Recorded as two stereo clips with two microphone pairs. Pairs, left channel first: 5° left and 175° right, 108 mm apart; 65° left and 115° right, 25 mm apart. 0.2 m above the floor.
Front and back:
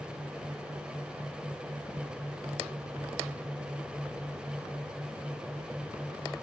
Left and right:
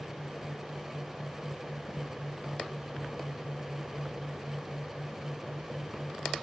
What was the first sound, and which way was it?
Only background noise.